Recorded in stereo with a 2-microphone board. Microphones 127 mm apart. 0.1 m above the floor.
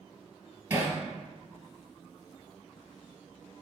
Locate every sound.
0.7 s hammering: 20° right (ahead or behind), 2 m